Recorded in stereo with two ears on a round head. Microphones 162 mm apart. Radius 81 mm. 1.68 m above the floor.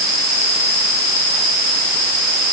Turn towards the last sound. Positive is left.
No sound to turn to.